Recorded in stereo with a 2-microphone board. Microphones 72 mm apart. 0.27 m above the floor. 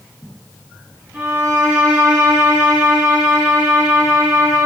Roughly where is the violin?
Right.